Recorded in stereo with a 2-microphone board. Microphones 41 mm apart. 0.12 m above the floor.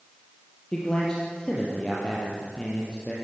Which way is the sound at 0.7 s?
20° left (ahead or behind).